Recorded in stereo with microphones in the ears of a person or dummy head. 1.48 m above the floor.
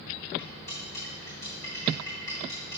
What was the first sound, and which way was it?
Cutlery clinking, 25° left (ahead or behind).